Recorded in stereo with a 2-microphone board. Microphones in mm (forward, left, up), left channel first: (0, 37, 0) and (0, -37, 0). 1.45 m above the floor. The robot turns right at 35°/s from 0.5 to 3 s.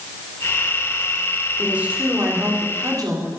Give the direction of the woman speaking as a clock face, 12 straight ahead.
6 o'clock.